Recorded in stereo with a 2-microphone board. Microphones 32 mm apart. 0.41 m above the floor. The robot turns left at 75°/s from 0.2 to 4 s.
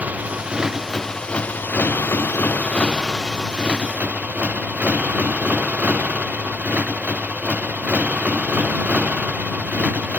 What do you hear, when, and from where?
0.0 s a motorcycle: 130° right; by 10.2 s 55° right